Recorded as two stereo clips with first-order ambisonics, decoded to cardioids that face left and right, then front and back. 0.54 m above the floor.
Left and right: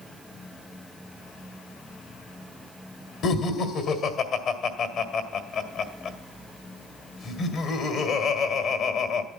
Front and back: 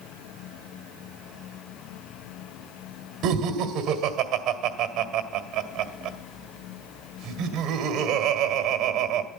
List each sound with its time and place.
3.2 s laughter: 135° left, 1.8 m